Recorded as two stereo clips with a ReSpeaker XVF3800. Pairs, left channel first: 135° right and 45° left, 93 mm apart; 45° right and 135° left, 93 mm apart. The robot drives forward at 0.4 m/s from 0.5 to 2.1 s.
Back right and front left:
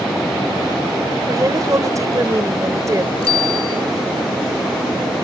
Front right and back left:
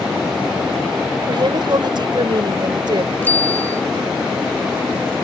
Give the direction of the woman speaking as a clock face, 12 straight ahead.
9 o'clock.